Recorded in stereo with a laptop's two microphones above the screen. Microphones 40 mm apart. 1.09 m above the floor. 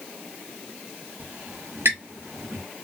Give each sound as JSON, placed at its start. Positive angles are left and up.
{"t": 1.2, "sound": "a squeak", "side_deg": -80, "distance_m": 0.9}